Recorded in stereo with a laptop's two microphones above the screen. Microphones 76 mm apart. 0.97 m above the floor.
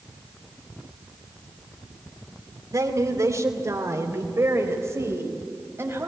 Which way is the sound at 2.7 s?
50° right (ahead or behind).